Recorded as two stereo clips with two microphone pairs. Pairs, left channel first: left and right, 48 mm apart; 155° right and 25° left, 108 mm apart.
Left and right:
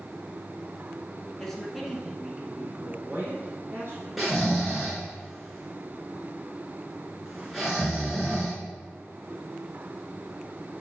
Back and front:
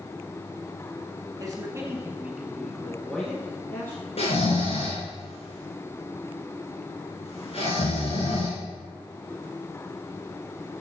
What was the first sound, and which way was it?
A man speaking, 15° left.